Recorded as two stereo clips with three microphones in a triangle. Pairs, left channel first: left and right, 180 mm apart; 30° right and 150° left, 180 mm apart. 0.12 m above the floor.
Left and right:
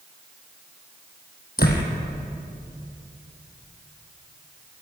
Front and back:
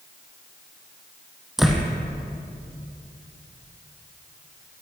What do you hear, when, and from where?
1.6 s a door slam: 60° left, 3.5 m